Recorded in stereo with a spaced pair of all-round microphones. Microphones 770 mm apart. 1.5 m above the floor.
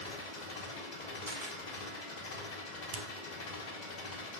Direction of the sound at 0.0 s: 65° left (ahead or behind).